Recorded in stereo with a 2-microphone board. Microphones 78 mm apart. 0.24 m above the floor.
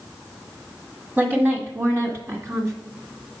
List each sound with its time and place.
1.2 s a woman speaking: 25° right (ahead or behind), 1.5 m; by 2.7 s 40° right (ahead or behind), 2 m